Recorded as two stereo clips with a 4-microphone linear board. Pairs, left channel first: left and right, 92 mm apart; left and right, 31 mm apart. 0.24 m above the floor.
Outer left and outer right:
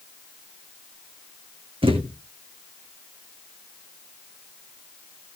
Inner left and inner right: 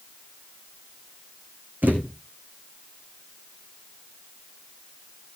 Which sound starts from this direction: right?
A thud, at 1.8 s.